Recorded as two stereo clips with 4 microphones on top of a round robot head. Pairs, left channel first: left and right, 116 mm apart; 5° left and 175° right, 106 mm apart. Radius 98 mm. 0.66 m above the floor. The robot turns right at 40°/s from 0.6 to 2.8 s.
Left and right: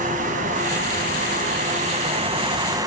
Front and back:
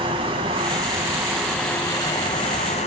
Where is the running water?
120° right, 1.9 m; by 2.9 s 30° right, 1.9 m.